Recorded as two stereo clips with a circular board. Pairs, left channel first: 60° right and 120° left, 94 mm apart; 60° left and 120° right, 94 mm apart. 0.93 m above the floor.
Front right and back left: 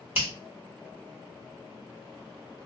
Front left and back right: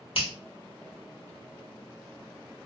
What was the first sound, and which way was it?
A finger snap, 50° left.